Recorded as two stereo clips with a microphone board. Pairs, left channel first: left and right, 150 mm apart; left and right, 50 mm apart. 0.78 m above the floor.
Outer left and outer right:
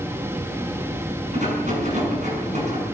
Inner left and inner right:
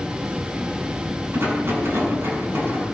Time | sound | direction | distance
1.3 | a rattle | 55° right (ahead or behind) | 8 m